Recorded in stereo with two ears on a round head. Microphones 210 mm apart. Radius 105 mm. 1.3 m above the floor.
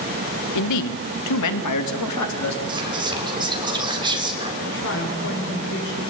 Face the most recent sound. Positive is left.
turn(degrees=55)  # may be behind; listen again after turning